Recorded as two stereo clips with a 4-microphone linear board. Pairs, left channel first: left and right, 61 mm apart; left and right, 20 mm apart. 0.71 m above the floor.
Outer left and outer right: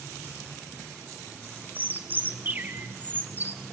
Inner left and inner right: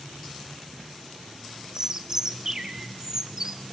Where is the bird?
30° right (ahead or behind), 1.5 m.